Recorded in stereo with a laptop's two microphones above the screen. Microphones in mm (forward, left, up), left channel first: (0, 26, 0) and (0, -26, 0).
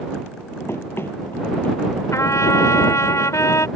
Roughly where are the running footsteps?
Left.